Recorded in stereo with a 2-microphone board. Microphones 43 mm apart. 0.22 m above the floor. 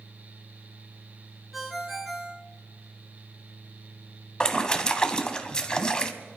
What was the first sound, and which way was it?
A ringtone, centre (ahead or behind).